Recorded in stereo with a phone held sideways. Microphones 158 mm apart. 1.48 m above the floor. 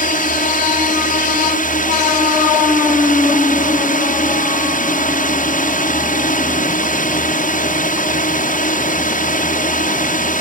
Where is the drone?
60° left (ahead or behind).